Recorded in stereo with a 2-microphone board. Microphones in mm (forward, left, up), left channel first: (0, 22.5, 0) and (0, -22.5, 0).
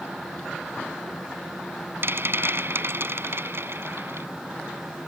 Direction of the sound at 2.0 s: 60° right (ahead or behind).